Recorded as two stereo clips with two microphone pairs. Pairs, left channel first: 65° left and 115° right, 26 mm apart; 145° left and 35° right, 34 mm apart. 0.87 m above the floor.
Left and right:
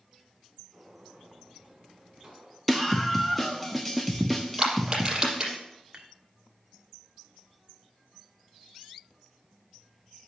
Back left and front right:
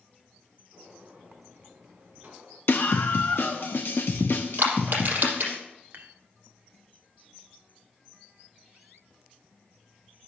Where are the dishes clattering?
60° right, 1.3 m.